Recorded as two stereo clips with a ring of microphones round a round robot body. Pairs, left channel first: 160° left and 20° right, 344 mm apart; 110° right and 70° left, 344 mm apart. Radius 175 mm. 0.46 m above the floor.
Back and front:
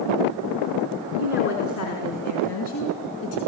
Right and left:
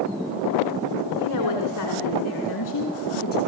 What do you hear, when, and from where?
1.2 s a woman speaking: 145° right, 4.5 m; by 3.4 s 175° right, 5 m